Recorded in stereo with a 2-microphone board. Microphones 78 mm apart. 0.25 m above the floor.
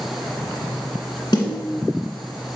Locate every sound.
1.3 s a snare drum: 65° left (ahead or behind), 1.8 m